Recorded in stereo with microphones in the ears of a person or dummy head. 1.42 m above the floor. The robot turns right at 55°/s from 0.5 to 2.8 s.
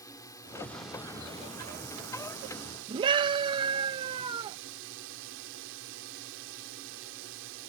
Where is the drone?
160° left; by 7.7 s 70° right.